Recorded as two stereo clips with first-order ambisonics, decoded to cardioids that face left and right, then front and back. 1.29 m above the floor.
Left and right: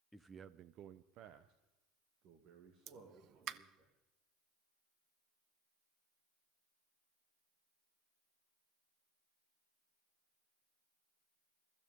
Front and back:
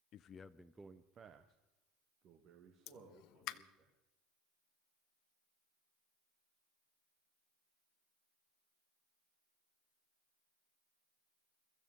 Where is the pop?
40° right, 0.6 m.